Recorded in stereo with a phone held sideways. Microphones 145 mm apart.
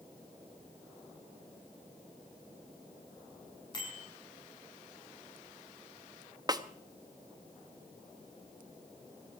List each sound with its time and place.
3.7 s a bicycle bell: 30° left (ahead or behind), 7 m
6.5 s a snare drum: 25° right (ahead or behind), 0.9 m